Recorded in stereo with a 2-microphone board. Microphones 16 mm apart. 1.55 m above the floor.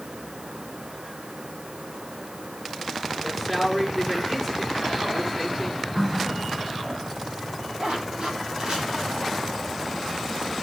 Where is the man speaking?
30° right (ahead or behind), 5.5 m.